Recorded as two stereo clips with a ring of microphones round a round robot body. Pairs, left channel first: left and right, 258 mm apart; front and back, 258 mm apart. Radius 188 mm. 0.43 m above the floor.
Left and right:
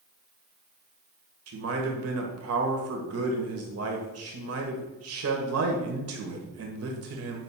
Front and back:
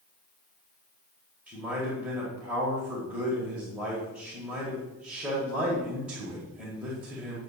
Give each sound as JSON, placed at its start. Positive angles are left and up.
{"t": 1.5, "sound": "a man speaking", "azimuth_deg": -95, "distance_m": 1.6}